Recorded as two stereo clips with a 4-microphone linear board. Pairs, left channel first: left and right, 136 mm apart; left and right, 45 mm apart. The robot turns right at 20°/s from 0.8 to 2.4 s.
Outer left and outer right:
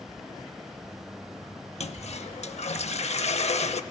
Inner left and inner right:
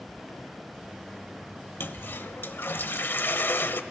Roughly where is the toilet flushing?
Left.